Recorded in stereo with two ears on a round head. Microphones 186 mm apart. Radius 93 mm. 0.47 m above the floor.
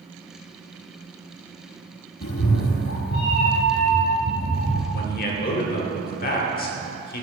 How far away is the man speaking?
About 1.3 m.